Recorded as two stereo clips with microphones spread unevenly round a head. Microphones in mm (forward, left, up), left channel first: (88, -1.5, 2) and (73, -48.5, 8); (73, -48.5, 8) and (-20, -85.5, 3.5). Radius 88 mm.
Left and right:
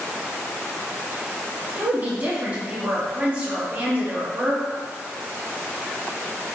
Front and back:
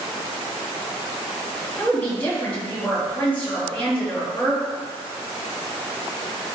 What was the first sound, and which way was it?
A woman speaking, 50° right.